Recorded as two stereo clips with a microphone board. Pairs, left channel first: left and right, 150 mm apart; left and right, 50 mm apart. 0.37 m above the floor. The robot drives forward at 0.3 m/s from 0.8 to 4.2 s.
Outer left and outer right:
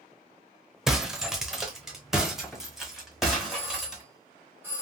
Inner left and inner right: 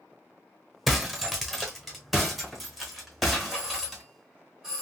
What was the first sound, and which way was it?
Breaking glass, 5° right (ahead or behind).